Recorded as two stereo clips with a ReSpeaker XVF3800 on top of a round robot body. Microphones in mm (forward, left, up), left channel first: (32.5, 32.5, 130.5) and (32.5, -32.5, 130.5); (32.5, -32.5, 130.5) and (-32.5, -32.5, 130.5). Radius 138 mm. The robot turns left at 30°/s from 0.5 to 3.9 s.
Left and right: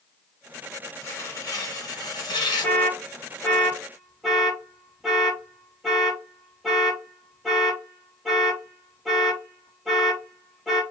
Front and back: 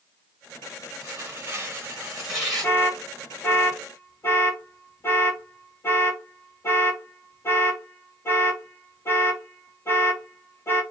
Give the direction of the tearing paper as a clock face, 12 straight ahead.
8 o'clock.